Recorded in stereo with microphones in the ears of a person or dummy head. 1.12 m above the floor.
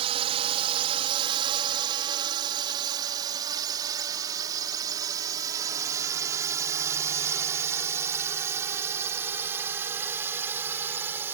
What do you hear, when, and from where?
0.0 s a drone: 35° right (ahead or behind); by 11.3 s 15° right (ahead or behind)